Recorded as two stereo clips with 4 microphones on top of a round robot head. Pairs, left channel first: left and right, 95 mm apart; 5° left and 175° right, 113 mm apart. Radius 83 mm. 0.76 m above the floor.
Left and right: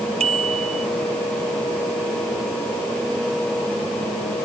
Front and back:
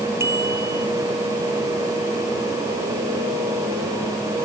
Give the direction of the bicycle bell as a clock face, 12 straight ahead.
3 o'clock.